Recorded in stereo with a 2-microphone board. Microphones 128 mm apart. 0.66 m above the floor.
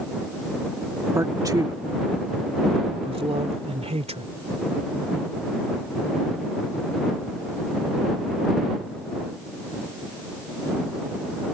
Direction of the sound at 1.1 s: 20° right (ahead or behind).